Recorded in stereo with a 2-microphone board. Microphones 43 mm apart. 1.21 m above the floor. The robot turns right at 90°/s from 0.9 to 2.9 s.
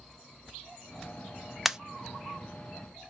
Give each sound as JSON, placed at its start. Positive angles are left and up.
{"t": 1.6, "sound": "a pop", "side_deg": -5, "distance_m": 0.5}